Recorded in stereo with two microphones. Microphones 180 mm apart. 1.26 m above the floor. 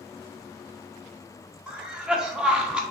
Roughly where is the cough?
Centre.